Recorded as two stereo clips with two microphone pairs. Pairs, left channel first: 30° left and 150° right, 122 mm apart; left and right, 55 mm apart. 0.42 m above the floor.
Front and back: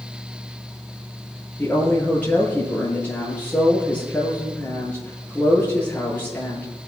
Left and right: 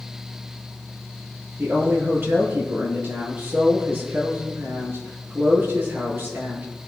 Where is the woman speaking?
45° right, 9 m.